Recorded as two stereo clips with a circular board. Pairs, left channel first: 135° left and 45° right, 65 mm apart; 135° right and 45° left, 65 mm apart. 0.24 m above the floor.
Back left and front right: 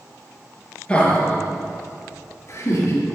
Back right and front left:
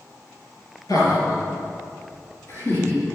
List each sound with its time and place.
0.9 s laughter: 155° right, 4 m; by 3.0 s 165° left, 4 m